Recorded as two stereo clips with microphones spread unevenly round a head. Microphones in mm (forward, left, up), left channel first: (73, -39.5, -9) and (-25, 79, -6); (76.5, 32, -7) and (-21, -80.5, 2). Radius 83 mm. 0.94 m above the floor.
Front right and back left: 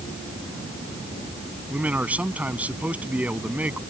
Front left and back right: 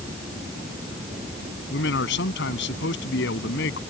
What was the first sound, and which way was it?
A man speaking, 50° left.